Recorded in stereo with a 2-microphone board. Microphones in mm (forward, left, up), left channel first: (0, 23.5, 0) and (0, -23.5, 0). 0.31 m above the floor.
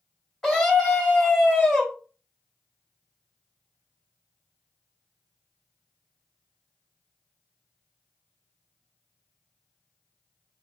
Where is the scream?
5° left (ahead or behind), 2.0 m.